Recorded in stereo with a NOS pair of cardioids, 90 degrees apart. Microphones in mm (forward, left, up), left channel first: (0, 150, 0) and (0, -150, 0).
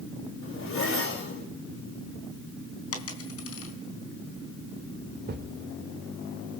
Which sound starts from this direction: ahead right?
A thud, at 5.3 s.